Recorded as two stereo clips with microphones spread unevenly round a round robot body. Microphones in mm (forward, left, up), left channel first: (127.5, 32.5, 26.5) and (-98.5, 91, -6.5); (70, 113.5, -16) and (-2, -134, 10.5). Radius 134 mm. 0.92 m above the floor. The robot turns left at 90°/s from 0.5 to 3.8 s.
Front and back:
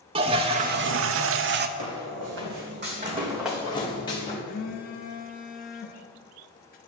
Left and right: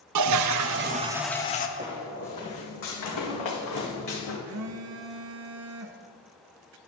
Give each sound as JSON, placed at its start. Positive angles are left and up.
{"t": 0.1, "sound": "a toilet flushing", "azimuth_deg": -130, "distance_m": 0.6}
{"t": 1.8, "sound": "footsteps", "azimuth_deg": -175, "distance_m": 2.0}
{"t": 4.5, "sound": "a phone buzzing", "azimuth_deg": -75, "distance_m": 0.8}